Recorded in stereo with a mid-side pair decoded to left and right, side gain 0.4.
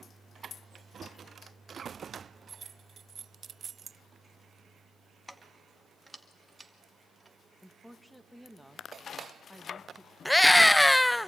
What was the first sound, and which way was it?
Keys jangling, 5° left.